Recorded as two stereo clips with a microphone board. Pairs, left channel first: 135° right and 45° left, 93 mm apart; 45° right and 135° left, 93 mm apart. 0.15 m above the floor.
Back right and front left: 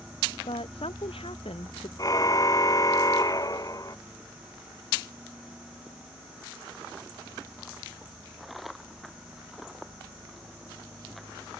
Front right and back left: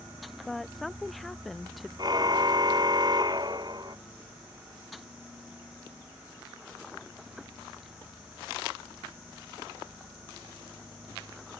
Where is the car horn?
175° left.